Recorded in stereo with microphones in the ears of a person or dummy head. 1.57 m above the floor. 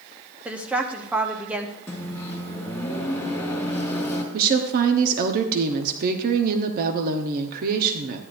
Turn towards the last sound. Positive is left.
turn(degrees=-50)  # may be behind; listen again after turning